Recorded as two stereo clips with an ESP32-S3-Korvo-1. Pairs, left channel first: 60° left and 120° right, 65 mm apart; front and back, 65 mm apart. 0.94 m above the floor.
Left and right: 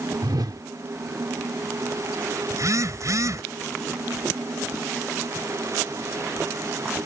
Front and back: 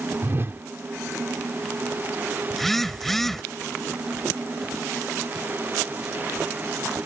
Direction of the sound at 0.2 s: 130° right.